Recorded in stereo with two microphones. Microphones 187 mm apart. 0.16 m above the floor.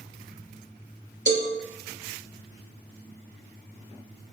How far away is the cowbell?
About 0.9 m.